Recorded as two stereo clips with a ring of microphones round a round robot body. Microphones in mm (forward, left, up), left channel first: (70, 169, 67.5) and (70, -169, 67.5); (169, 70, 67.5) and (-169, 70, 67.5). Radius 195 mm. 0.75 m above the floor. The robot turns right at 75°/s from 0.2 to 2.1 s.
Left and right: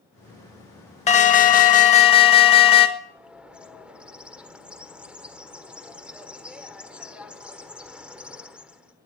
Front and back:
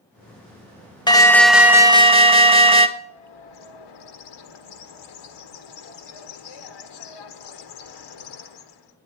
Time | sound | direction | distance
1.1 | an alarm | 55° left | 1.6 m
3.0 | a bird | 5° right | 1.4 m